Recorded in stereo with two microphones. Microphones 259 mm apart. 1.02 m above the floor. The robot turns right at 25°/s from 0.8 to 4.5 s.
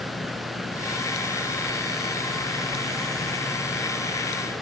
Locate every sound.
Only background noise.